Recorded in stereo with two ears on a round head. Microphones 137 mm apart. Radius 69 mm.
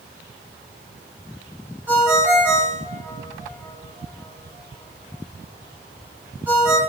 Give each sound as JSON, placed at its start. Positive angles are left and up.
{"t": 1.9, "sound": "a ringtone", "side_deg": -10, "distance_m": 2.5}